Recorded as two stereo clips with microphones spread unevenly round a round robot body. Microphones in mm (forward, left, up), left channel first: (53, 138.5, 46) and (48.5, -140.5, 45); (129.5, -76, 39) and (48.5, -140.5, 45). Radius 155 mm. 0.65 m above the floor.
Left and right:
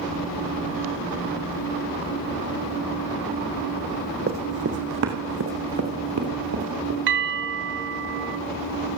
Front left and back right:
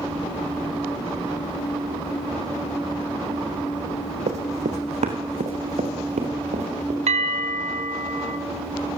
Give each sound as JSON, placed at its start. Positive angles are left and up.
{"t": 4.3, "sound": "running footsteps", "azimuth_deg": -155, "distance_m": 2.5}
{"t": 7.1, "sound": "a bell", "azimuth_deg": -145, "distance_m": 3.0}